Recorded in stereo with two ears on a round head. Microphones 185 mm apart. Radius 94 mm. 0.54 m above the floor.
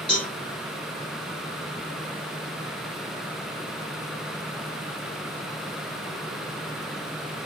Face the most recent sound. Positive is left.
turn(degrees=30)  # may be behind; listen again after turning